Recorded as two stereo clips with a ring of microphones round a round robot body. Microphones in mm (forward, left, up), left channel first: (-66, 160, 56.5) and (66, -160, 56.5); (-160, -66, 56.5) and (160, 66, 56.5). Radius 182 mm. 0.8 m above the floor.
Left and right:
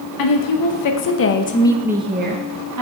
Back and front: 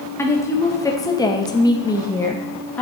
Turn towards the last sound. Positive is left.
turn(degrees=-75)